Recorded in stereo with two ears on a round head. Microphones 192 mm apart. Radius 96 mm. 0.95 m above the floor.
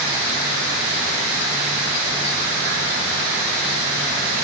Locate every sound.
Only background noise.